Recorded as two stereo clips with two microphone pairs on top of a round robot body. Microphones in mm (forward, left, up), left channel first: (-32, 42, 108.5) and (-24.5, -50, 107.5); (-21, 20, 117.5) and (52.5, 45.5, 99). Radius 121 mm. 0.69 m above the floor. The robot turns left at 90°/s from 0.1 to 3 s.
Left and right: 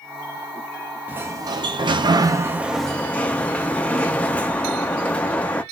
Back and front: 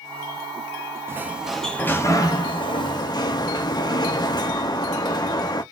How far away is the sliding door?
About 0.7 m.